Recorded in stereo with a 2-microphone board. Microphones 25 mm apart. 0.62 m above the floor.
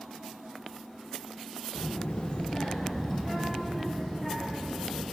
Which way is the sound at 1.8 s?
65° left (ahead or behind).